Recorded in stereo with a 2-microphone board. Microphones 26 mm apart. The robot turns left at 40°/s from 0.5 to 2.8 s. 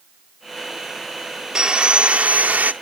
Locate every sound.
1.6 s sawing: 30° right, 0.8 m; by 2.7 s 75° right, 0.8 m